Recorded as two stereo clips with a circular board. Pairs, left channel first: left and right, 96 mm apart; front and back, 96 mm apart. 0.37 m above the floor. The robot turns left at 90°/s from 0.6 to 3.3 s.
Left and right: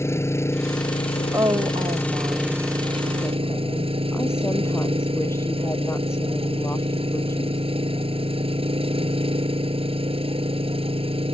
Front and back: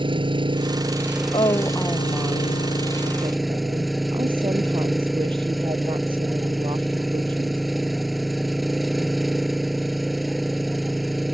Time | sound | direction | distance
0.0 | an engine running | 150° left | ?
1.3 | a woman speaking | 30° right | ?